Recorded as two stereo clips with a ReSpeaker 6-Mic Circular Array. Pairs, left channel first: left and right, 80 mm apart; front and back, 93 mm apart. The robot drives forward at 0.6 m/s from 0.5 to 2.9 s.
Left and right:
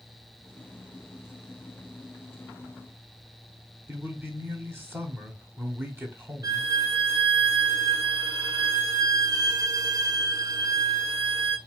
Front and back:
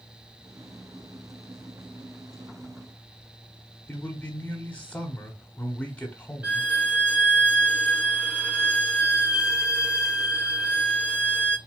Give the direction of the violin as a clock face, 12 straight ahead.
4 o'clock.